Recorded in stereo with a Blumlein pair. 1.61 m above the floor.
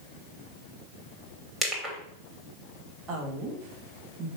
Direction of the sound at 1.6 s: 5° right.